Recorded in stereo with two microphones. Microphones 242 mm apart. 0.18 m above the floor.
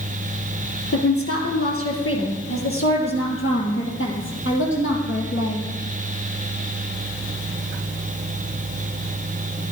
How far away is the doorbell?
No doorbell in this recording.